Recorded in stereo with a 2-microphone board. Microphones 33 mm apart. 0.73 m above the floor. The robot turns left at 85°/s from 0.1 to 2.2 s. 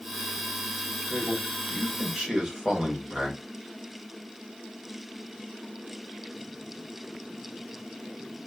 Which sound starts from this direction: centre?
A man speaking, at 1.1 s.